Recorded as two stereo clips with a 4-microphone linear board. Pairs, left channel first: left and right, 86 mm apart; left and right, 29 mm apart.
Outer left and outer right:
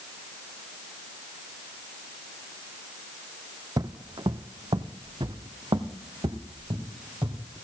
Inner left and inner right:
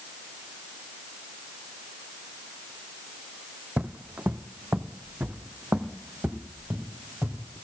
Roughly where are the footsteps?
Right.